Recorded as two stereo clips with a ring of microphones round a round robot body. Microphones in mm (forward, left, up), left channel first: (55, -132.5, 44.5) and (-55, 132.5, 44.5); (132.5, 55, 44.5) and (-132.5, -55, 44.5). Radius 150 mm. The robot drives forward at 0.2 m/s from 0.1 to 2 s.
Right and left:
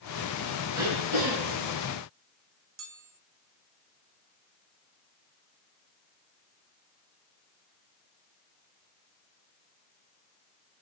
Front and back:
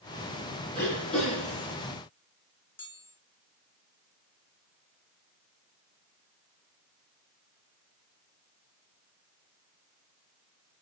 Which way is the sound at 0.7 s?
110° left.